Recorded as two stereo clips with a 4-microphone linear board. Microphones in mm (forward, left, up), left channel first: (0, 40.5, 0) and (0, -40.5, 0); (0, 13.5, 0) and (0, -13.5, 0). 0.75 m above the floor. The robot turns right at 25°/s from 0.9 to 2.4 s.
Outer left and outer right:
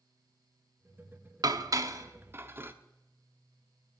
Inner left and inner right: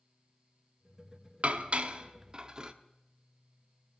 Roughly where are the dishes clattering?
Right.